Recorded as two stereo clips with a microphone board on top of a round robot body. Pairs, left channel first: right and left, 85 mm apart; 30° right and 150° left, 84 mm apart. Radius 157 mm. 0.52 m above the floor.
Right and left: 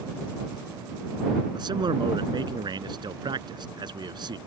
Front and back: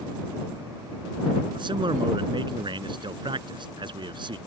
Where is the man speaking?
125° left.